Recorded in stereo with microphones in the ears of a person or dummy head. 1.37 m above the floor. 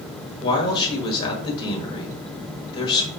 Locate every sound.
0.4 s a man speaking: 25° left (ahead or behind), 1.3 m